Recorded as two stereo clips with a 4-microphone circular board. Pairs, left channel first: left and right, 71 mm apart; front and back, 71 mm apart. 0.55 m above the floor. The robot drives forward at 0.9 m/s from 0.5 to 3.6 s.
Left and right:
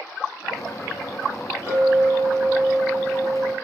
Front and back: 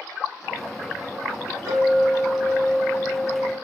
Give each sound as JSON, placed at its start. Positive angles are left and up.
{"t": 1.7, "sound": "a clink", "azimuth_deg": -145, "distance_m": 2.0}